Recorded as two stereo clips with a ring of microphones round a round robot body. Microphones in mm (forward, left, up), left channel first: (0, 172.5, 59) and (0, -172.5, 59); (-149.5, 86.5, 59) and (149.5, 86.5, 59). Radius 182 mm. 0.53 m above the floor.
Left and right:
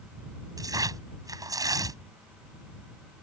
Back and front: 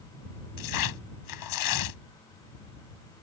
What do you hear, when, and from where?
0.6 s tearing paper: 170° right